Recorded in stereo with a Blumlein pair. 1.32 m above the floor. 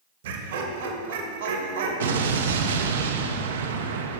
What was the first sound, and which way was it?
Laughter, 55° right.